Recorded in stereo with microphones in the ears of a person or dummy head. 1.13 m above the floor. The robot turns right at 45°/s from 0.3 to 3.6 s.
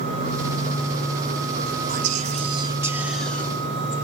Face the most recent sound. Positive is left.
turn(degrees=15)